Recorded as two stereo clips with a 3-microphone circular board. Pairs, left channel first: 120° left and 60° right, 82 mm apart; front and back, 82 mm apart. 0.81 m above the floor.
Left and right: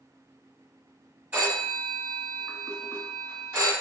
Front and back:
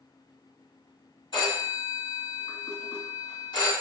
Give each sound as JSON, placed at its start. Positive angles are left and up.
{"t": 1.3, "sound": "a phone ringing", "azimuth_deg": 10, "distance_m": 1.7}